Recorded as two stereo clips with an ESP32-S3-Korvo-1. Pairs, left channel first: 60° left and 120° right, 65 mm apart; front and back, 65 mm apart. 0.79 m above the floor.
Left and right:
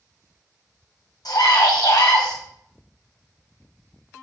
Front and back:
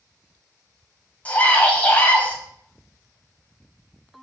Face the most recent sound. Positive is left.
turn(degrees=65)